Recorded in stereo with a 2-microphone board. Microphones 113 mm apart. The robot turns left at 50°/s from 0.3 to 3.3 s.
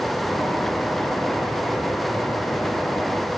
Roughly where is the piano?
I don't hear a piano.